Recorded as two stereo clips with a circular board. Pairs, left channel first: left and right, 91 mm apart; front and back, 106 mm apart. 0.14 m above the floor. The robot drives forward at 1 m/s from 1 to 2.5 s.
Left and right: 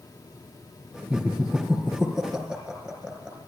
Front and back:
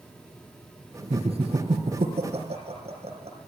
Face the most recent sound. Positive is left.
turn(degrees=-170)